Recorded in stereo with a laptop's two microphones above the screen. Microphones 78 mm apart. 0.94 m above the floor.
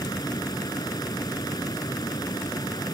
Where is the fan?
55° left (ahead or behind).